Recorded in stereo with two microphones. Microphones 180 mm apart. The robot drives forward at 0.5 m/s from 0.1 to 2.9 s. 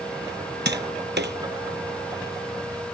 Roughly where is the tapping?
Right.